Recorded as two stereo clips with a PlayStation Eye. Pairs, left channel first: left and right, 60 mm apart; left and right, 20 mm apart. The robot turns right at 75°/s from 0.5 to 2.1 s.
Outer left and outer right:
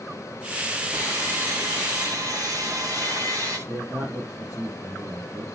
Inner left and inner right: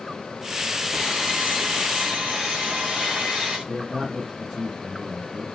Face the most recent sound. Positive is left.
turn(degrees=-35)  # may be behind; listen again after turning